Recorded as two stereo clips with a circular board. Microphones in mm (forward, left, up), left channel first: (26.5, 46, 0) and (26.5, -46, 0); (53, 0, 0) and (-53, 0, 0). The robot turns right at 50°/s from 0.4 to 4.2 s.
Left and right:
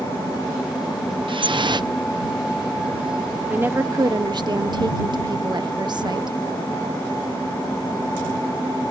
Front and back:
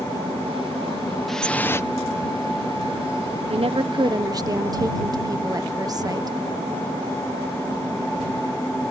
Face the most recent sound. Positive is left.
turn(degrees=-125)